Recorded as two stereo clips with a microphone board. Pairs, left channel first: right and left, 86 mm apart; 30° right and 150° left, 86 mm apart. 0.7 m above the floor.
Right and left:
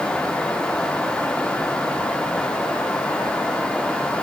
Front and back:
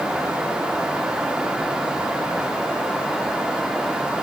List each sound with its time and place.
Only background noise.